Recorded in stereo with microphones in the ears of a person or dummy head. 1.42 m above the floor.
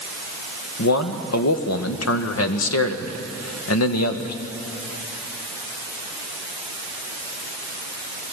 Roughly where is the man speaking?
Left.